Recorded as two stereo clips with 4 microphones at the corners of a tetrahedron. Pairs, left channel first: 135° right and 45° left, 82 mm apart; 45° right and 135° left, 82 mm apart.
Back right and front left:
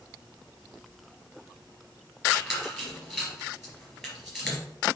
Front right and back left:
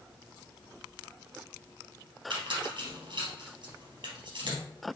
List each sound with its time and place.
2.3 s a squeak: 130° left, 3 m